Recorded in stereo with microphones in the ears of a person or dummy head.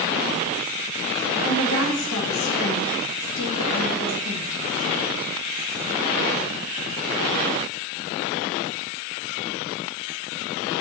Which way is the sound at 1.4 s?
70° left (ahead or behind).